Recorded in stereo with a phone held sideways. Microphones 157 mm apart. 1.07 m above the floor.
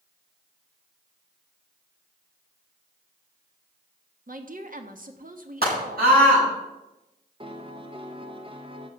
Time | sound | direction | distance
4.3 | a woman speaking | 60° right (ahead or behind) | 1.4 m
5.6 | a scream | 85° right | 8.5 m
7.4 | a piano | 35° right (ahead or behind) | 1.2 m